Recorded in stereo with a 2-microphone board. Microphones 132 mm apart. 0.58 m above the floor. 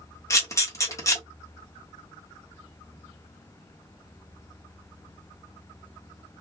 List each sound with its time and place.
0.3 s a camera shutter: 25° left (ahead or behind), 1.1 m